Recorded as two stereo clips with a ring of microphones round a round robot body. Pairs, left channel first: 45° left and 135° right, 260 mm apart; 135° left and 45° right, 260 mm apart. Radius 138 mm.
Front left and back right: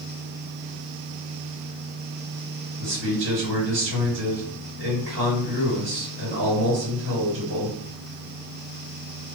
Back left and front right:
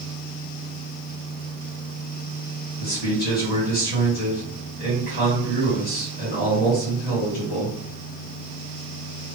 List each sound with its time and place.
2.8 s a man speaking: 175° right, 2.5 m